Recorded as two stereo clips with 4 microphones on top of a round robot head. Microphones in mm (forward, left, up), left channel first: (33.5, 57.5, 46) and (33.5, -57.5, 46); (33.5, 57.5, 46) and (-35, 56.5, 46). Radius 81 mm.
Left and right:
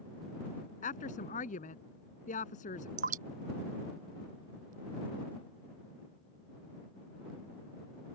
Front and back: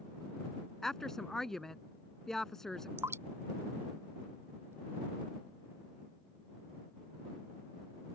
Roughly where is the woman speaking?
Left.